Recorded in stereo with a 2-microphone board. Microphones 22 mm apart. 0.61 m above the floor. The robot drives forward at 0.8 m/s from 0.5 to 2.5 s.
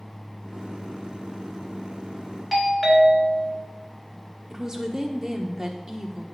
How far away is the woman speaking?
About 1.3 m.